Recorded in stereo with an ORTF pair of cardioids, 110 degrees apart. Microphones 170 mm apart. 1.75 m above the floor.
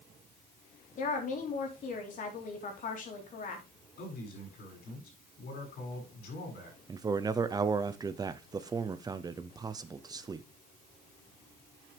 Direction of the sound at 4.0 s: 70° left.